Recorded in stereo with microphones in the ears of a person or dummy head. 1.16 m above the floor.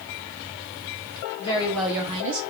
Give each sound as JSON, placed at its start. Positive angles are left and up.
{"t": 1.4, "sound": "a woman speaking", "side_deg": 25, "distance_m": 1.0}